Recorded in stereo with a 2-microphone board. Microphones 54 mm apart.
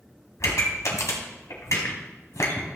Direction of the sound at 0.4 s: 65° left (ahead or behind).